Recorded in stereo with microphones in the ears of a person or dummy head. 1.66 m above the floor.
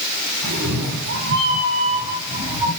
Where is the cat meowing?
55° right (ahead or behind), 1.6 m; by 2.7 s 15° right (ahead or behind), 1.8 m.